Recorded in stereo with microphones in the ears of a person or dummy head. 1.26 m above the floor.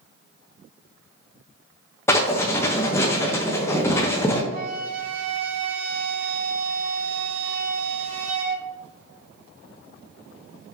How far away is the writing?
About 0.6 m.